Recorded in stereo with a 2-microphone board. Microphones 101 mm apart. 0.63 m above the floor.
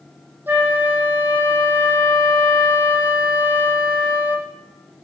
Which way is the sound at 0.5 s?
20° right (ahead or behind).